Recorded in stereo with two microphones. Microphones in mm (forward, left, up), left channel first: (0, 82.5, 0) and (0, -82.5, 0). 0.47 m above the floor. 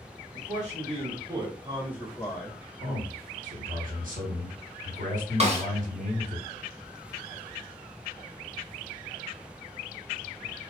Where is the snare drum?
40° right (ahead or behind), 0.9 m.